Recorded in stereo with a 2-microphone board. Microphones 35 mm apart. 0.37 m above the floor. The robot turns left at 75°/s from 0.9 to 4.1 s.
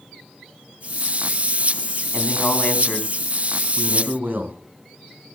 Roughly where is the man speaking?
Left.